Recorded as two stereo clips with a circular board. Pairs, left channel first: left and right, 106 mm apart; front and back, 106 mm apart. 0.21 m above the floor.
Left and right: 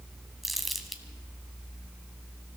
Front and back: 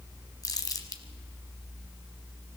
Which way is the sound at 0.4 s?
Straight ahead.